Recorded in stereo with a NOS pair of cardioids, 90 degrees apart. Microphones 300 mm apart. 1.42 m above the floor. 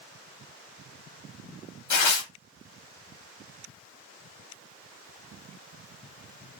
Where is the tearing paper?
65° left, 1.0 m.